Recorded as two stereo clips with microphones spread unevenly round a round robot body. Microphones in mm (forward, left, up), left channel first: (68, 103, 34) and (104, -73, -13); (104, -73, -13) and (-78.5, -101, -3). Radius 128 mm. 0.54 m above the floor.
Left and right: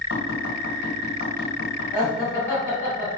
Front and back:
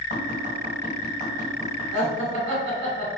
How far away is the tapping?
About 1.4 m.